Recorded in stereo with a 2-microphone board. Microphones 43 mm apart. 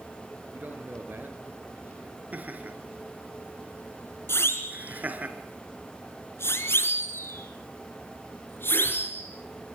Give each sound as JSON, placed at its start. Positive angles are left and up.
{"t": 0.5, "sound": "a man speaking", "side_deg": -50, "distance_m": 4.5}
{"t": 2.3, "sound": "laughter", "side_deg": -40, "distance_m": 4.0}
{"t": 4.3, "sound": "a siren", "side_deg": 75, "distance_m": 3.5}